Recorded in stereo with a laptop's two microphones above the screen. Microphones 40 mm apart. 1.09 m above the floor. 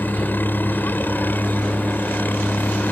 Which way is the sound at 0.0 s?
50° left (ahead or behind).